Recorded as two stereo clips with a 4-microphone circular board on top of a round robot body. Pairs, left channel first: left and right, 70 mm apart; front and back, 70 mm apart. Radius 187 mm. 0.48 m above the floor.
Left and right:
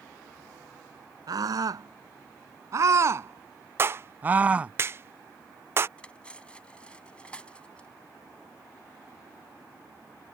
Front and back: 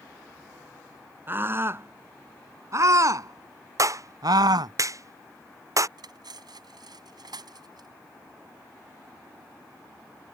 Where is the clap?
145° right.